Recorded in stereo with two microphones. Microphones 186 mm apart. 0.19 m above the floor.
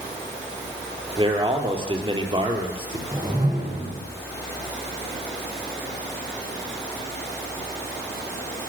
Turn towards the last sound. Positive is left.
turn(degrees=-20)  # may be behind; listen again after turning